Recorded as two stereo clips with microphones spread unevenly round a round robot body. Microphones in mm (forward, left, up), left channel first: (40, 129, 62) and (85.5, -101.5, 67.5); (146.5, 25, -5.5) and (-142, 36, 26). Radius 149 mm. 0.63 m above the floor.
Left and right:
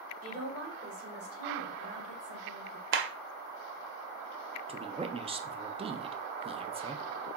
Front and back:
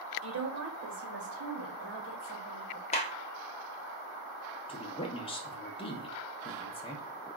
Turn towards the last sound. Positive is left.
turn(degrees=-35)